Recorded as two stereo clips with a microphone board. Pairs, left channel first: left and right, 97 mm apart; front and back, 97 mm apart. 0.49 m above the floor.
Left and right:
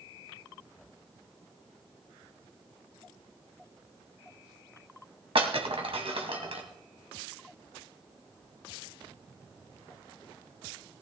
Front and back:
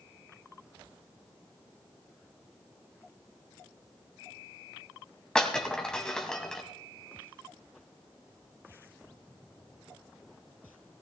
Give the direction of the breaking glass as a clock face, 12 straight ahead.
3 o'clock.